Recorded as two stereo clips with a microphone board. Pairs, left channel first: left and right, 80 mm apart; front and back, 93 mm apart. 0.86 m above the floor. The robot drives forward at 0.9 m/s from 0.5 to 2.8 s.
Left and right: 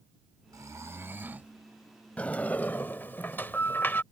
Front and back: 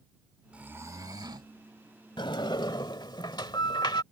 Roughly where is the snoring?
Right.